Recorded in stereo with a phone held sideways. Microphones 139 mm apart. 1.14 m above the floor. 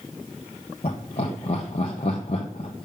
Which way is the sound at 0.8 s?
50° left (ahead or behind).